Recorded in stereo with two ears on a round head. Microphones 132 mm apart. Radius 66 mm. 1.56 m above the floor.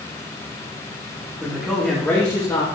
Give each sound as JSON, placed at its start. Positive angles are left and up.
{"t": 1.4, "sound": "a man speaking", "side_deg": -5, "distance_m": 1.7}